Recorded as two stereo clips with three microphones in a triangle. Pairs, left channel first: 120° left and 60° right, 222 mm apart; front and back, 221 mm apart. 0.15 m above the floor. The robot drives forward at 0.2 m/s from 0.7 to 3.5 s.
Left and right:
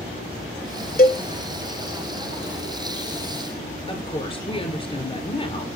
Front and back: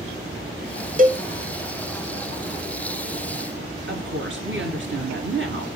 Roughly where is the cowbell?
Behind left.